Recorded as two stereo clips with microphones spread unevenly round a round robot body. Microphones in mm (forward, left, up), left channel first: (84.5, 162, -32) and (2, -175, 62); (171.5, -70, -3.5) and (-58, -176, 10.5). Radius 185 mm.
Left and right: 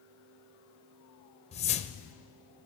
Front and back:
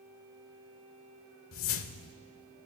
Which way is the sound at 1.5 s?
20° left.